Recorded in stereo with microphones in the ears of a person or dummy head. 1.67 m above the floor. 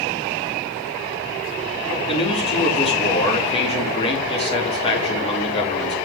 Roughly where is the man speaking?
Left.